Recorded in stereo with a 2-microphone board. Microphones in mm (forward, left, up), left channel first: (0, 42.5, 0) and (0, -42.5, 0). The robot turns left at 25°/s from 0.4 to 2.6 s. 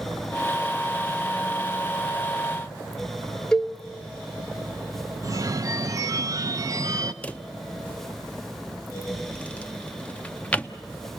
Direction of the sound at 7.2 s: 15° left (ahead or behind).